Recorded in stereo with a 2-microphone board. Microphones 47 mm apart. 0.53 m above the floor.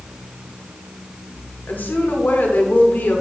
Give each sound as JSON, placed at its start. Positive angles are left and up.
{"t": 1.7, "sound": "a woman speaking", "side_deg": 45, "distance_m": 1.4}